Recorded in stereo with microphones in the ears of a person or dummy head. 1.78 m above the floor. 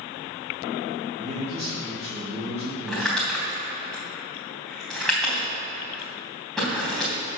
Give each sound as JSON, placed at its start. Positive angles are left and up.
{"t": 1.2, "sound": "a man speaking", "side_deg": -25, "distance_m": 3.0}
{"t": 2.9, "sound": "crumpling", "side_deg": 5, "distance_m": 3.5}